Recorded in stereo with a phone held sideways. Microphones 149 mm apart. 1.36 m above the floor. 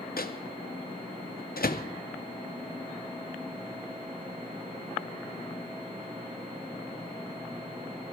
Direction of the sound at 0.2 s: 85° left.